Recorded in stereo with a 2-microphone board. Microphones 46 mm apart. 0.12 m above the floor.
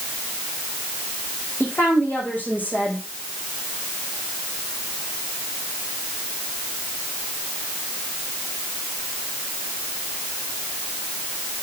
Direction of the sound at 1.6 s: 40° left (ahead or behind).